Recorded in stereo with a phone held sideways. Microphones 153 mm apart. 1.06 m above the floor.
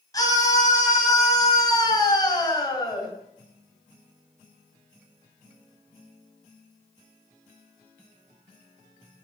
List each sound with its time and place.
0.1 s a scream: 25° left (ahead or behind), 8.5 m